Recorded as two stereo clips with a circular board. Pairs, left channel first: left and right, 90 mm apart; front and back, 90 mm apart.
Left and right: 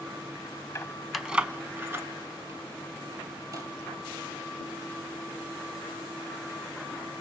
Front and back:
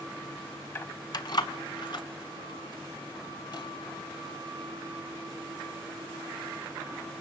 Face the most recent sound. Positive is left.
turn(degrees=-40)